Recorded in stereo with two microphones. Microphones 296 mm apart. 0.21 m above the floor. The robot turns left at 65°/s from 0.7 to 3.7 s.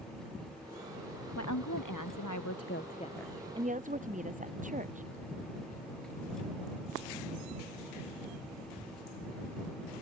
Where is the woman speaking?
130° left; by 5.1 s 25° right.